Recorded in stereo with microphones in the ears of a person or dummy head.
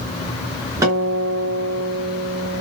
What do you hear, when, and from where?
0.8 s a guitar: 10° right (ahead or behind), 1.3 m